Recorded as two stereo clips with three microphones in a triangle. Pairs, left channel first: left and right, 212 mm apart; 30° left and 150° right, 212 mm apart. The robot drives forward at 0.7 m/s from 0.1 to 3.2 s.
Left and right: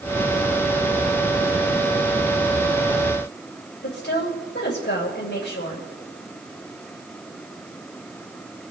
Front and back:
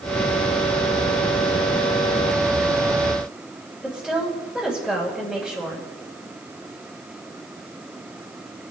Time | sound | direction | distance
3.8 | a woman speaking | 115° left | 2.5 m